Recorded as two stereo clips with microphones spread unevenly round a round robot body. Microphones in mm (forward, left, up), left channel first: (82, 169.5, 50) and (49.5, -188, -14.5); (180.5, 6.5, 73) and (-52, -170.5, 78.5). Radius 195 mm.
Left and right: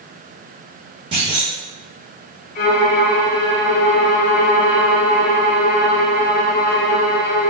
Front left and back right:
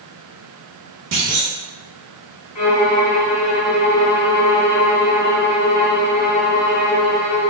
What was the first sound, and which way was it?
A clunk, 165° right.